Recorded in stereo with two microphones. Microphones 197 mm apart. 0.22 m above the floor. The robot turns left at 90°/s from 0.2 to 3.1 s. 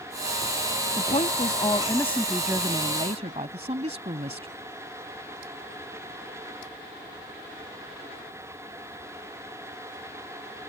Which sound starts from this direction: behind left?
A woman speaking, at 1.0 s.